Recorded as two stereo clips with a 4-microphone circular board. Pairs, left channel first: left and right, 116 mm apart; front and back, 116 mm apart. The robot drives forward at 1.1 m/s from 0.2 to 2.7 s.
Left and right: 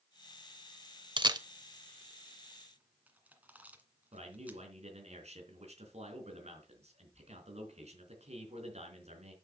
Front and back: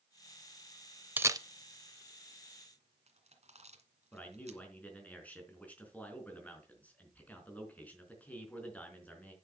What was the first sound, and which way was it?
A camera shutter, 110° right.